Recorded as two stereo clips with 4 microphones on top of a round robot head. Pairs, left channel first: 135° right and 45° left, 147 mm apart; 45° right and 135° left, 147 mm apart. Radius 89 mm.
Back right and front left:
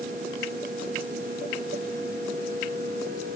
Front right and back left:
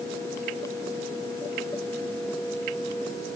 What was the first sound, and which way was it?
Only background noise.